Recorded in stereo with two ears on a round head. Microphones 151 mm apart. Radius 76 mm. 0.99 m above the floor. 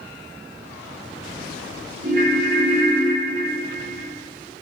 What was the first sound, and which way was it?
A ringtone, 50° right (ahead or behind).